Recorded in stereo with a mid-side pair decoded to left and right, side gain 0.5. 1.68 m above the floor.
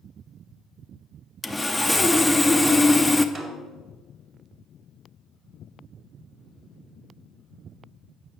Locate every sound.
1.4 s sawing: 10° left, 0.6 m
3.4 s a snare drum: 20° right, 2 m